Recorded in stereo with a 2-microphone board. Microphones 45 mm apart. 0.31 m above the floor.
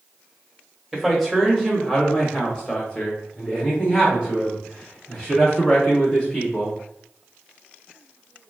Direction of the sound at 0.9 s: Centre (ahead or behind).